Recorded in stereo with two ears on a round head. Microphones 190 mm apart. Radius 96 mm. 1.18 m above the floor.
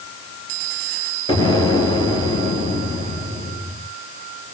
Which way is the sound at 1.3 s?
20° left (ahead or behind).